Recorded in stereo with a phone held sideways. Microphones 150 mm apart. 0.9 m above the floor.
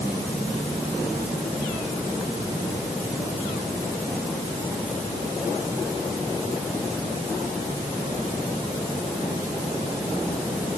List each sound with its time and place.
Only background noise.